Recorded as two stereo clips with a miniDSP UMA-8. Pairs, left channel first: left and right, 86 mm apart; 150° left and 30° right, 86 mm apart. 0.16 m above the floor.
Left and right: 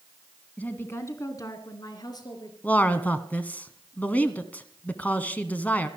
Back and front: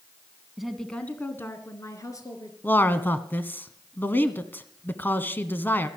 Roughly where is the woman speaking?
Ahead left.